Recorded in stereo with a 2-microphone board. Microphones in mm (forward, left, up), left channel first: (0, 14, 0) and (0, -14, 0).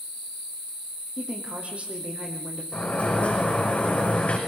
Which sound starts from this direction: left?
A sliding door, at 2.7 s.